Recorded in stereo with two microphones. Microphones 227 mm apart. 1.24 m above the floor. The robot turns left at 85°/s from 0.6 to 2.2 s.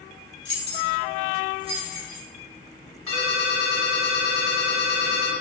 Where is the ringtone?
70° right (ahead or behind), 1.3 m.